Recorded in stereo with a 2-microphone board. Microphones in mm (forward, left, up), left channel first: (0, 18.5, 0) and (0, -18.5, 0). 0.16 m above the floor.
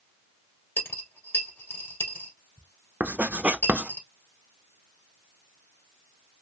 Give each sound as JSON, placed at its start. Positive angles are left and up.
{"t": 0.8, "sound": "a dropped coin", "side_deg": 70, "distance_m": 1.9}
{"t": 3.0, "sound": "writing", "side_deg": -45, "distance_m": 0.6}